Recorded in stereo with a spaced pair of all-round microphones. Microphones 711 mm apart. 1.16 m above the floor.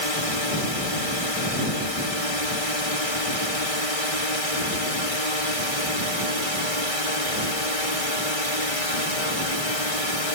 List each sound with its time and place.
0.0 s a drone: 50° left (ahead or behind)